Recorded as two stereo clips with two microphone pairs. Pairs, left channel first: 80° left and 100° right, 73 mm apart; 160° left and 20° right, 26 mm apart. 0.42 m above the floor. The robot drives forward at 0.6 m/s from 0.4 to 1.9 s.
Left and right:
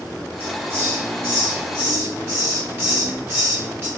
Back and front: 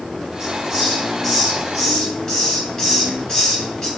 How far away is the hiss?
About 1.4 m.